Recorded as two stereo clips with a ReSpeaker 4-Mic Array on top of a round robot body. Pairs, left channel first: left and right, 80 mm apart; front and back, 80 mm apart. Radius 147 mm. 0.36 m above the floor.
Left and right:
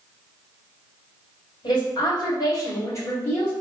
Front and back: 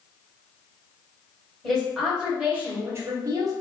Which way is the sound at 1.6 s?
85° left.